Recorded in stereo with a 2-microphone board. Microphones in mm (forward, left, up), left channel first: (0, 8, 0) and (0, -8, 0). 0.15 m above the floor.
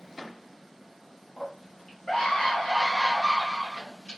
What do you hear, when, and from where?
1.4 s a scream: 25° left (ahead or behind), 1.3 m; by 4.2 s 70° left (ahead or behind), 3 m